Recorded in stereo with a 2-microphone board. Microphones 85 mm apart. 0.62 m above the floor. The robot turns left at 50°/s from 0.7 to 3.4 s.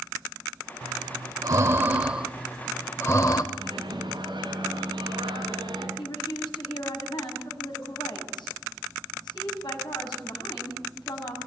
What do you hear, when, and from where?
0.8 s breathing: 75° right (ahead or behind), 1.3 m; by 3.4 s 50° left (ahead or behind), 1.3 m
3.5 s a microwave: 70° right (ahead or behind), 5.5 m
6.0 s a woman speaking: 65° left (ahead or behind), 5.5 m